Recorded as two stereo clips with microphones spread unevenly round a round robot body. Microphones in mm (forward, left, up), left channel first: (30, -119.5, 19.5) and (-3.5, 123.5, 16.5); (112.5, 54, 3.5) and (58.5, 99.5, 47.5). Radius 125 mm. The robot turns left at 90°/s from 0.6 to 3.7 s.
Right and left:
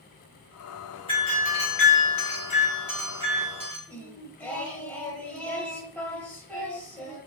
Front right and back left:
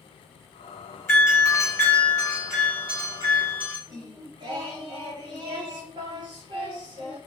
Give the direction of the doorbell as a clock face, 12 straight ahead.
12 o'clock.